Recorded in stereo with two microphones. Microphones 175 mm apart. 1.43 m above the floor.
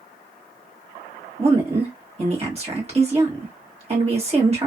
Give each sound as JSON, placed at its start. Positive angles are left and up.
{"t": 1.4, "sound": "a woman speaking", "side_deg": -35, "distance_m": 1.4}